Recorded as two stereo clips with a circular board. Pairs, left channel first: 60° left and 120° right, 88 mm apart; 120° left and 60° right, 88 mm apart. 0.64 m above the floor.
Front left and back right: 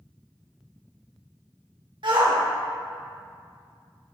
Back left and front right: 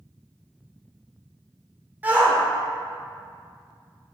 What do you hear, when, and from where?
2.0 s a shout: 125° right, 1.9 m